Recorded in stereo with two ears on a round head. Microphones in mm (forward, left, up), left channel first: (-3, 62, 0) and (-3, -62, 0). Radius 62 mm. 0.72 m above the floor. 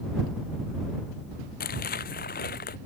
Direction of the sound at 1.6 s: 75° left (ahead or behind).